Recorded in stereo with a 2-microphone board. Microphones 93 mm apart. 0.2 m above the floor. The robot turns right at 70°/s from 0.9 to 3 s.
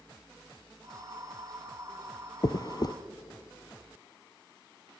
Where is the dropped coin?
45° left (ahead or behind), 0.7 m.